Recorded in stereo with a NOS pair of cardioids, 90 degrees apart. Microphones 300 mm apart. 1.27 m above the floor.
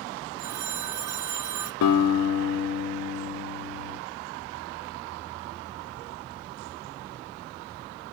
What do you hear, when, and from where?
0.4 s a phone ringing: 70° right, 0.7 m
1.8 s a guitar: 65° left, 1.6 m